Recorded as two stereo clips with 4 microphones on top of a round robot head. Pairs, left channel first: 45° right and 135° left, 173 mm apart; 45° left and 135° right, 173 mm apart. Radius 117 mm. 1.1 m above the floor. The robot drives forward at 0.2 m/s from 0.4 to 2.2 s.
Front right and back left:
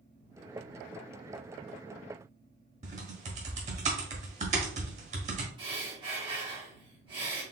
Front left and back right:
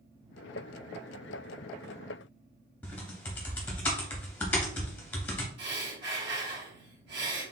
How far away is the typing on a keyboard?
About 0.7 m.